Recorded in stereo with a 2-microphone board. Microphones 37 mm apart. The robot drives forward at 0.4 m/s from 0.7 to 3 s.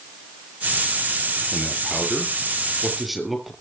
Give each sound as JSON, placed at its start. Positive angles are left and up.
{"t": 1.5, "sound": "a man speaking", "side_deg": 0, "distance_m": 6.5}